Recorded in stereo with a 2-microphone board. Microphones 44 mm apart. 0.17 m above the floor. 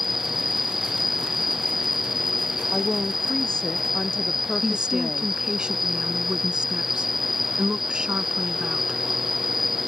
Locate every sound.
0.0 s an insect: 5° right (ahead or behind)
2.7 s a woman speaking: 20° left (ahead or behind)
4.6 s a woman speaking: 20° right (ahead or behind)